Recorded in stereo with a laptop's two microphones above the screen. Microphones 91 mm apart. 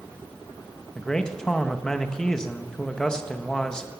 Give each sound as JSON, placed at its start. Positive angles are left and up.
{"t": 0.9, "sound": "a man speaking", "side_deg": 5, "distance_m": 0.9}